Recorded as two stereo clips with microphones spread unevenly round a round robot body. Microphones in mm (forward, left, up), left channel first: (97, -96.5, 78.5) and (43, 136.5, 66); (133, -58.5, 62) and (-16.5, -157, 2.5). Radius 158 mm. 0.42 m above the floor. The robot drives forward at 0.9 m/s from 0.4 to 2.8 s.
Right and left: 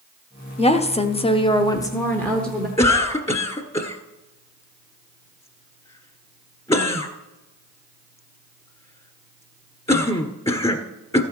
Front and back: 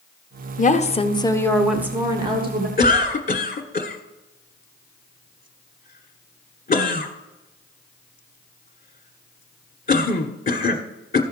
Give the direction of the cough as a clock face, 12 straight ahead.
1 o'clock.